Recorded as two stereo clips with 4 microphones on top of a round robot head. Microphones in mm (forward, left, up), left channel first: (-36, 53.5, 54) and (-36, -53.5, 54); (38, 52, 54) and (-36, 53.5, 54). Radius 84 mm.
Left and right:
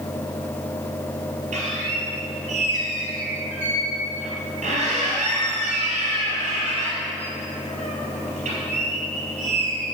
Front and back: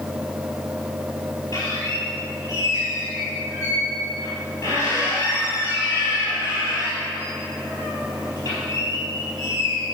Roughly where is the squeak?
Ahead right.